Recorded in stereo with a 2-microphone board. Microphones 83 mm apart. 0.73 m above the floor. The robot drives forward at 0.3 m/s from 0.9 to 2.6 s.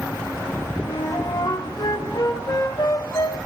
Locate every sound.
0.8 s a flute: 70° left (ahead or behind), 2.5 m; by 3.4 s 60° left (ahead or behind), 2.5 m